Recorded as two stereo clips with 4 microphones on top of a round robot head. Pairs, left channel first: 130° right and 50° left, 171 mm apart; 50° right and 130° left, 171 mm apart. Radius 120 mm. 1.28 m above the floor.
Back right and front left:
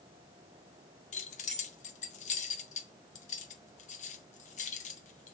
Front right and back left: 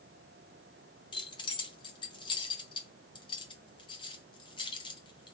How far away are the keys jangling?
About 0.6 m.